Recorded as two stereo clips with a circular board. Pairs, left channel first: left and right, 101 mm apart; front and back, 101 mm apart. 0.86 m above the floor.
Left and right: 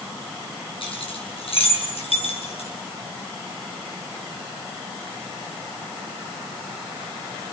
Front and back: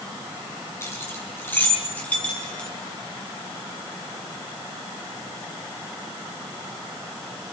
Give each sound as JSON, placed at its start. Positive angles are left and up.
{"t": 0.8, "sound": "keys jangling", "azimuth_deg": 65, "distance_m": 5.5}